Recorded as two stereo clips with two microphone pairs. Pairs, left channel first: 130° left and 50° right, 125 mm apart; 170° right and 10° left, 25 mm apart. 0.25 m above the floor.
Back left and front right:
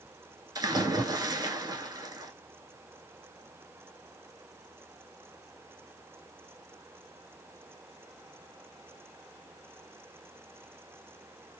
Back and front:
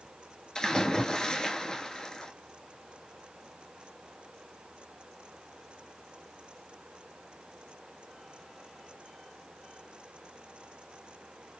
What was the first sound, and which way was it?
A splash, 105° right.